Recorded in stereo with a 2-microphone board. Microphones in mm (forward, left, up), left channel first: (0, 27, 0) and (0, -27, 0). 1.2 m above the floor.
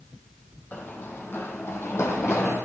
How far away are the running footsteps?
About 2.5 m.